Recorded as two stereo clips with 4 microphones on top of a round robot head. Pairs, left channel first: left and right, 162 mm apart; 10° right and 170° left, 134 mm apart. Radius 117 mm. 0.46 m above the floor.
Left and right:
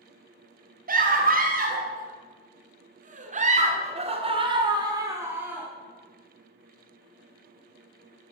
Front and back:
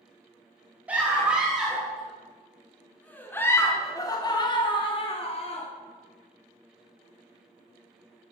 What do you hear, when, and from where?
0.9 s a scream: 110° right, 3 m; by 5.7 s 10° right, 1.8 m